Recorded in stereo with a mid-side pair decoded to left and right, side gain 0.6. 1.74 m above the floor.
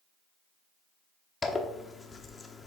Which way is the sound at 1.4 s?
25° left.